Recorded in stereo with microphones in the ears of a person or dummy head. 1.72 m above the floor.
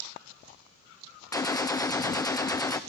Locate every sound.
1.3 s a gunshot: 15° left (ahead or behind), 0.6 m